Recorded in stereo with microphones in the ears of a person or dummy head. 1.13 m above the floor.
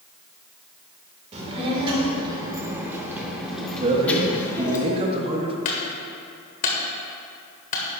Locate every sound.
1.3 s a child speaking: 35° right (ahead or behind), 3 m; by 4.8 s 20° left (ahead or behind), 2.5 m
3.8 s a man speaking: 30° right (ahead or behind), 1.4 m
5.7 s a clunk: 45° left (ahead or behind), 1.3 m